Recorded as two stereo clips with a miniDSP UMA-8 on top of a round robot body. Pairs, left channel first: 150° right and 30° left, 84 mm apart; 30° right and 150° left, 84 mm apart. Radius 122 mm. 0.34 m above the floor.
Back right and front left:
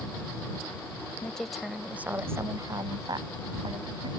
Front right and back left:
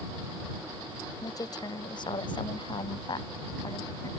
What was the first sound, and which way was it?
A woman speaking, 70° right.